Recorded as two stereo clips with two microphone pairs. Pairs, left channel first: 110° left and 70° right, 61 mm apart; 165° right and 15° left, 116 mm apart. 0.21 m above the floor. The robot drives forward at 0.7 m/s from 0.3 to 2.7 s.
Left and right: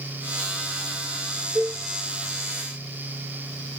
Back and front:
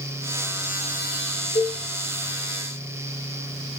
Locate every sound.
1.6 s a cowbell: 140° right, 2.5 m